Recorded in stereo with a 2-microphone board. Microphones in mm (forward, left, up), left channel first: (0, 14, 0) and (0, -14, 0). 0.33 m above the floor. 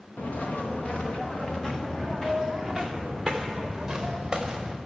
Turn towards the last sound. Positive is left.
turn(degrees=-15)  # may be behind; listen again after turning